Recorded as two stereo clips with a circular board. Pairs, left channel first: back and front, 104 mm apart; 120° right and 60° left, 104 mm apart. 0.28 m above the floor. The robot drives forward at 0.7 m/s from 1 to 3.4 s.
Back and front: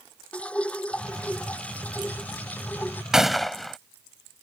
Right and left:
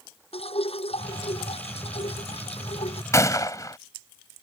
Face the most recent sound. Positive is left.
turn(degrees=-90)